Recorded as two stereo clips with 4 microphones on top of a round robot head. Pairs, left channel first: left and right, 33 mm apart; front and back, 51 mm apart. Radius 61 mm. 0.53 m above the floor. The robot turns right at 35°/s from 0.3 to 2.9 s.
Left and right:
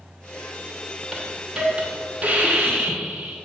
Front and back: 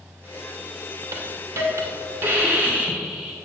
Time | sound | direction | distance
1.1 | a hiss | 175° right | 2.5 m